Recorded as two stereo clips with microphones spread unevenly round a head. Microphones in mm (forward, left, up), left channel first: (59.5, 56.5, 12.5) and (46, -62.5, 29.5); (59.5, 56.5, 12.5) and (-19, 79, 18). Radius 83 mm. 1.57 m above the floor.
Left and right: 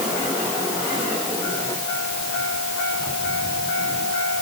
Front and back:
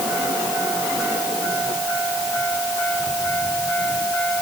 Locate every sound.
Only background noise.